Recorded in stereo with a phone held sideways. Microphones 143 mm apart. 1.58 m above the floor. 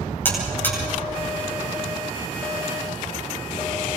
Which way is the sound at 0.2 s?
15° left (ahead or behind).